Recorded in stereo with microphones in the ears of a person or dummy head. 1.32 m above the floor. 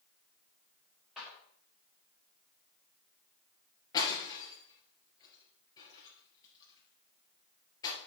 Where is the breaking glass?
25° left (ahead or behind), 3 m.